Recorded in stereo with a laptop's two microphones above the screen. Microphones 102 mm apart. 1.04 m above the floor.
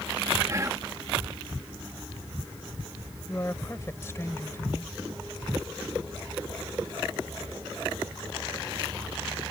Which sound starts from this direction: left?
A woman speaking, at 3.3 s.